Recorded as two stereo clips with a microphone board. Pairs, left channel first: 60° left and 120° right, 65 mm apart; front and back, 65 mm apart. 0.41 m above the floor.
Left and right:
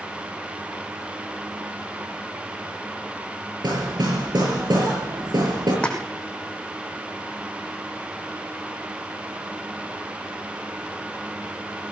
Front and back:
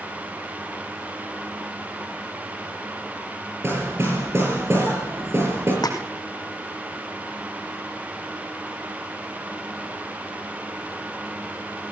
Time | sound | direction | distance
3.6 | hammering | 130° right | 8 m
5.8 | a splash | 15° right | 3.5 m